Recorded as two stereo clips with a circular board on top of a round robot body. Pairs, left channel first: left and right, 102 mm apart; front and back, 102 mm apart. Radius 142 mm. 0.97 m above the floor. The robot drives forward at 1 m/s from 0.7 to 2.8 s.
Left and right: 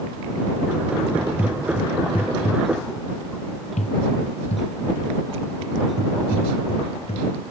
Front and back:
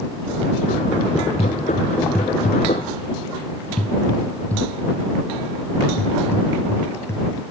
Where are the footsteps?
25° right; by 7.3 s 65° left.